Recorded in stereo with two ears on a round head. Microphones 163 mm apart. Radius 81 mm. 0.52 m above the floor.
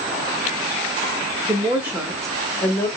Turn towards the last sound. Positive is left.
turn(degrees=20)  # may be behind; listen again after turning